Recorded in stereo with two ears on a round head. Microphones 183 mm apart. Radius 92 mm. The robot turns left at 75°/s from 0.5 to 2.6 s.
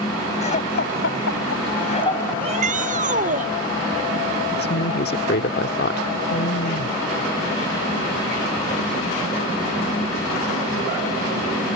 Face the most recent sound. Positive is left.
turn(degrees=50)  # may be behind; listen again after turning